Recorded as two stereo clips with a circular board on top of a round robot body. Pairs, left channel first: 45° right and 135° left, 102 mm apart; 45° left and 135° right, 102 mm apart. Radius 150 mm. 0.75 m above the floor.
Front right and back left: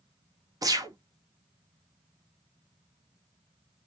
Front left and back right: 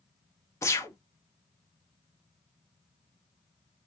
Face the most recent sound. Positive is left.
turn(degrees=95)